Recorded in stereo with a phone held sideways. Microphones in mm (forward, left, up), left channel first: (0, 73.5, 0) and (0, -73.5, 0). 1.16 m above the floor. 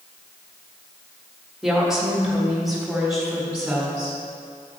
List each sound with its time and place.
1.6 s a woman speaking: 5° right (ahead or behind), 1.5 m; by 4.2 s centre (ahead or behind), 4 m